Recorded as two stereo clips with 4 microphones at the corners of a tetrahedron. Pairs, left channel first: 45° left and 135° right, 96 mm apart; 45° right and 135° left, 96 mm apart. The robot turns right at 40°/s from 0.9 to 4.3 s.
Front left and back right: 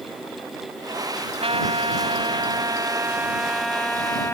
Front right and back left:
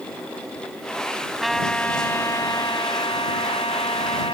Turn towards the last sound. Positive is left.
turn(degrees=-20)